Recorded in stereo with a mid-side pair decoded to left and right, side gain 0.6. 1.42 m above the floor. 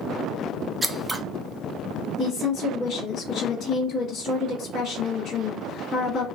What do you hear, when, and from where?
0.8 s scissors: 10° right, 0.7 m
2.2 s a woman speaking: 50° left, 1.7 m